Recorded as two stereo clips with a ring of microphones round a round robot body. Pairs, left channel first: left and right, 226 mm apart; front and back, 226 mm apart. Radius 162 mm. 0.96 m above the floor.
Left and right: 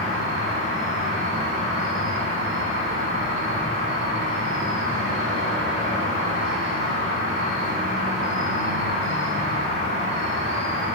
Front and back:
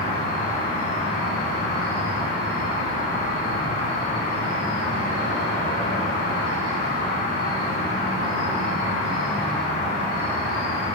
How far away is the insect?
About 4 m.